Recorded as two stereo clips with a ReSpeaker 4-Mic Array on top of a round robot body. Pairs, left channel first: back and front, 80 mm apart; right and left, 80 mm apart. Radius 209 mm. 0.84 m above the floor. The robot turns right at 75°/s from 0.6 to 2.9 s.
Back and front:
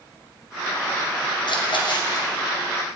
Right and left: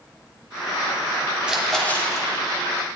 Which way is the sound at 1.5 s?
165° left.